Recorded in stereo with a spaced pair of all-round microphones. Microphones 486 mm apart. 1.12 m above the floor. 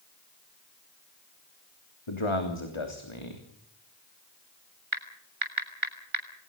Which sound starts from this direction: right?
Typing on a keyboard, at 4.9 s.